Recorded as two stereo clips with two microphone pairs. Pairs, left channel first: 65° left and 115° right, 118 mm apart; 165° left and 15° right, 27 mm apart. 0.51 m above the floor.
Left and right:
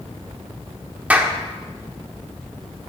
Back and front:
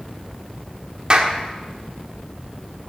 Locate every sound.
1.1 s a clap: 45° right, 1.2 m